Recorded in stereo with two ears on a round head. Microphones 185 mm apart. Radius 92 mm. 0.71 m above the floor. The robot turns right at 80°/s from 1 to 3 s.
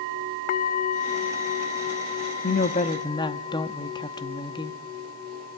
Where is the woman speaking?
110° left, 0.8 m; by 4.8 s 155° left, 0.8 m.